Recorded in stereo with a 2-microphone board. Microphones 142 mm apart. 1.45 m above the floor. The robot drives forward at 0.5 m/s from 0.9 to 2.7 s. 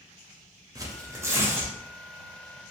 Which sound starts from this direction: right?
Tearing paper, at 0.8 s.